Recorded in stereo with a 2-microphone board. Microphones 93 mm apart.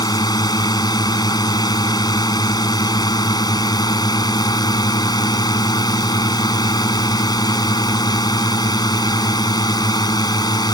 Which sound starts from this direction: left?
A drone, at 0.0 s.